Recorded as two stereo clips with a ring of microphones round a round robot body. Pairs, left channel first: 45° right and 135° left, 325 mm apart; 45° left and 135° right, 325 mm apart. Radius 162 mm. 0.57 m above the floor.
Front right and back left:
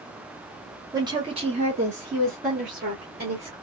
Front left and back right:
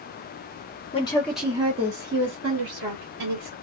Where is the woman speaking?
75° left, 0.8 m; by 3.5 s 160° right, 1.7 m.